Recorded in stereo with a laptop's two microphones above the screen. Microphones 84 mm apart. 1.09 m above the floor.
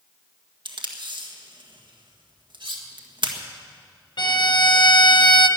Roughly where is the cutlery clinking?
Right.